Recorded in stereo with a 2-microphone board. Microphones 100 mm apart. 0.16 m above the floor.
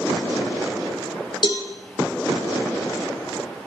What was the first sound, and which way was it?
A cowbell, 50° left (ahead or behind).